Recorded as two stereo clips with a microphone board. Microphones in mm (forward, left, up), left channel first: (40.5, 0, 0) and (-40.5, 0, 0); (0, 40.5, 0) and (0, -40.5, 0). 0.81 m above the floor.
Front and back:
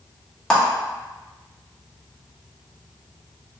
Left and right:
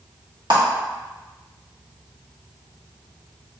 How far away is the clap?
About 1.3 m.